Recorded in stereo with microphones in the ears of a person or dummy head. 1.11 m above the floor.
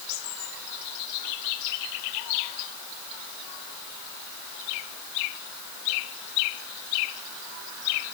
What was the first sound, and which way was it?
Only background noise.